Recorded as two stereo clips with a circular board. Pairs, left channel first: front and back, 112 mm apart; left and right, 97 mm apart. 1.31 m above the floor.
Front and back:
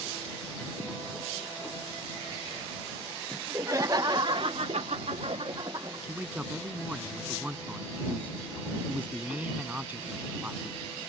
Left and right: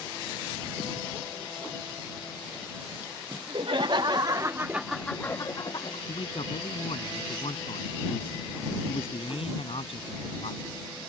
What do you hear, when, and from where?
3.3 s laughter: 115° right; by 6.0 s 125° left
6.1 s a man speaking: 105° left